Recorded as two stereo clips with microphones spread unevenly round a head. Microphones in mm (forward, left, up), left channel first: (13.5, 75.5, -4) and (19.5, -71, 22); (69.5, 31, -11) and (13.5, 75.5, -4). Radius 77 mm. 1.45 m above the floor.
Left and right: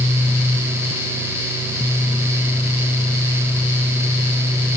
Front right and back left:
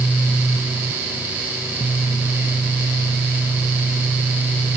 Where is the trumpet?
I don't hear a trumpet.